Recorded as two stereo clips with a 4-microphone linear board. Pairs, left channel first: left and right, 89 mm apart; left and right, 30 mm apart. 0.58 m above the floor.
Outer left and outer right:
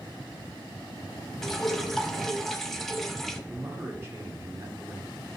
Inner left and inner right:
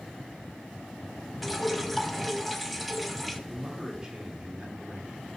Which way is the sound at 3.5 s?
30° right (ahead or behind).